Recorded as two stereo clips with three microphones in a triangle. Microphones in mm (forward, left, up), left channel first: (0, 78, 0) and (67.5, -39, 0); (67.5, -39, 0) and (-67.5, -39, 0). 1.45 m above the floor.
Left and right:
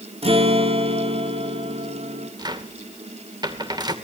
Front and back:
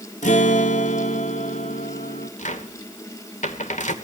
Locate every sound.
0.2 s a guitar: 20° right, 2.5 m
2.4 s a cupboard door: 5° right, 2.5 m